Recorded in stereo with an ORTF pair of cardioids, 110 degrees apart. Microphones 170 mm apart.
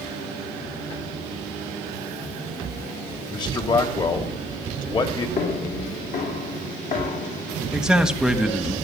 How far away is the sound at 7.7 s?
About 1.5 m.